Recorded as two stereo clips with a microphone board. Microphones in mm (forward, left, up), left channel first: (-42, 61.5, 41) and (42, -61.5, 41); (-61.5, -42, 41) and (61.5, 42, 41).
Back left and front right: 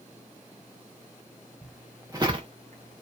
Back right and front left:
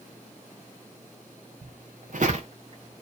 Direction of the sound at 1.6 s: 40° left.